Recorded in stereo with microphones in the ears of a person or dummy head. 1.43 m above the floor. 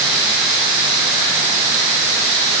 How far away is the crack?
No crack in this recording.